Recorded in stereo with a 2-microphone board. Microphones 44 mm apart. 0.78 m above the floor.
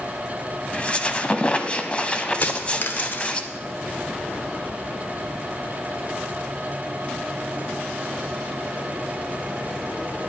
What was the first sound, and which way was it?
A squeak, 25° left (ahead or behind).